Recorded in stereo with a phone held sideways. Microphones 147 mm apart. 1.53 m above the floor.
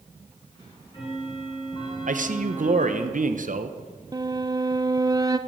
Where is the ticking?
35° left (ahead or behind), 5 m.